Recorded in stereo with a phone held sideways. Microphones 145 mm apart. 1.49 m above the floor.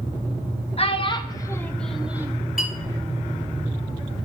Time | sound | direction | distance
0.8 | a child speaking | 45° left (ahead or behind) | 1.0 m
2.6 | a clink | 75° left (ahead or behind) | 2.5 m